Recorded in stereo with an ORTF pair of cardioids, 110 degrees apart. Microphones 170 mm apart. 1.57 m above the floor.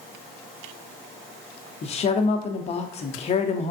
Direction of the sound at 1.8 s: 35° left.